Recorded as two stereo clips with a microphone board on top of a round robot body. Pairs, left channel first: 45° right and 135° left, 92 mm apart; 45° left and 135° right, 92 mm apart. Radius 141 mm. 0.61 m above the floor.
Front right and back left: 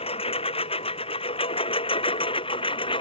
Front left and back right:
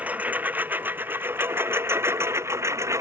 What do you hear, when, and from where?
0.0 s a lawn mower: 60° right; by 3.0 s 75° right